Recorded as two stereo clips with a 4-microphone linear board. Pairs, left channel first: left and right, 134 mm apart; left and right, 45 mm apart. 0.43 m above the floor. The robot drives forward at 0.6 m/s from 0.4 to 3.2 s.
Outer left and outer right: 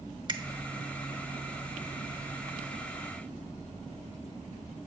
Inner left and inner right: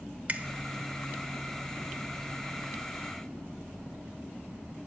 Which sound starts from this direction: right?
A finger snap, at 0.3 s.